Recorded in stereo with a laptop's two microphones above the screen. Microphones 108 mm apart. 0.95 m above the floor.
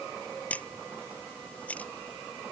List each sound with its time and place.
0.5 s a camera shutter: 15° left (ahead or behind)